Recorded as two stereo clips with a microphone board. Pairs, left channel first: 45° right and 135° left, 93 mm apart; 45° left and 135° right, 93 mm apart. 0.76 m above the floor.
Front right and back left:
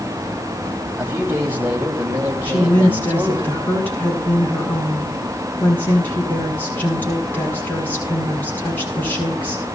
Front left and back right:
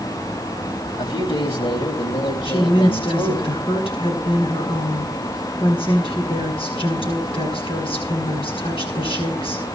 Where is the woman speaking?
25° left, 8.5 m.